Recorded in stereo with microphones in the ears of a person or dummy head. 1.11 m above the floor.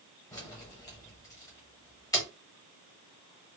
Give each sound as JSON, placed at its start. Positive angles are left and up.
{"t": 0.3, "sound": "keys jangling", "side_deg": 20, "distance_m": 0.9}